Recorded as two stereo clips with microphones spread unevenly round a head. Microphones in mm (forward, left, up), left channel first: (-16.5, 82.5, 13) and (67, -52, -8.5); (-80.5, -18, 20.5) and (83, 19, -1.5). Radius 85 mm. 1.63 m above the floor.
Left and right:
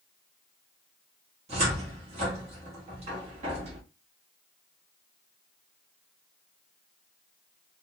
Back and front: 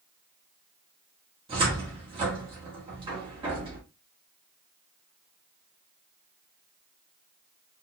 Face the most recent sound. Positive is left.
turn(degrees=-35)